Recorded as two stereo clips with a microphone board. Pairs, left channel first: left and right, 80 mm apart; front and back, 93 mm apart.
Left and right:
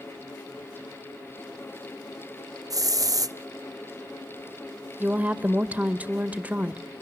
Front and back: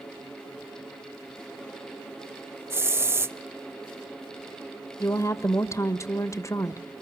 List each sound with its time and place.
2.7 s a hiss: 120° right, 0.5 m
5.0 s a woman speaking: 30° right, 1.1 m